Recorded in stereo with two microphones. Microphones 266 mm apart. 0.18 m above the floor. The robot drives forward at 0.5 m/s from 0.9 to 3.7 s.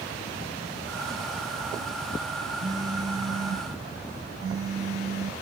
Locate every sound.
2.6 s a phone buzzing: 65° right (ahead or behind), 2.5 m; by 5.3 s 60° right (ahead or behind), 2.5 m